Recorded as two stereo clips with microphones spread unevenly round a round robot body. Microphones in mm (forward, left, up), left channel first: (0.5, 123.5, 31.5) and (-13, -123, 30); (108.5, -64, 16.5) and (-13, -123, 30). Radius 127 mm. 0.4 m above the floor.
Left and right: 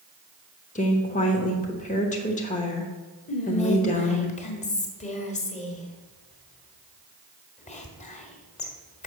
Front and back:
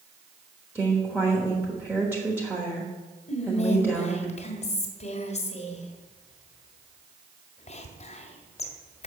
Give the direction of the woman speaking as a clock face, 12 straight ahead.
8 o'clock.